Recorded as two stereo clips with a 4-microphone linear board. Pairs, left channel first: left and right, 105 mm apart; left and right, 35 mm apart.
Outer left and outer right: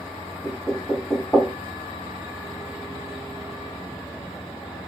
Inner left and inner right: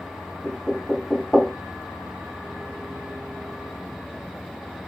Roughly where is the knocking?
Centre.